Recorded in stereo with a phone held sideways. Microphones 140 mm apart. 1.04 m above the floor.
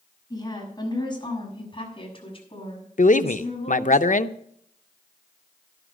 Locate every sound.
0.3 s a woman speaking: 25° left (ahead or behind), 6.5 m; by 4.0 s 45° left (ahead or behind), 7.5 m
3.0 s a man speaking: 65° left (ahead or behind), 0.6 m